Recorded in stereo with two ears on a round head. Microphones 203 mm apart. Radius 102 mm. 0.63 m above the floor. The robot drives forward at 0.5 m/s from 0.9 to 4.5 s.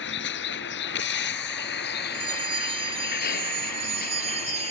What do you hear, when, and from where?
0.0 s a vehicle: 55° left (ahead or behind); by 4.7 s 40° left (ahead or behind)
2.1 s a bell: 25° right (ahead or behind); by 4.7 s 30° right (ahead or behind)